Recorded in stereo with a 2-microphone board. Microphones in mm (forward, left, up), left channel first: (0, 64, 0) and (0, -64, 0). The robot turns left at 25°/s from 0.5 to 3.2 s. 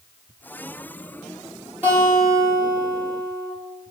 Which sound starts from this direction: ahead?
A guitar, at 1.8 s.